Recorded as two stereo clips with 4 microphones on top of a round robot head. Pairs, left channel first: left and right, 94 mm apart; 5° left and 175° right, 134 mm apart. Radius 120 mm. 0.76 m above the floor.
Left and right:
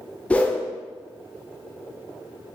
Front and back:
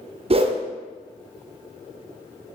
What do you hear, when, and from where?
0.3 s a whoosh: 160° left, 0.6 m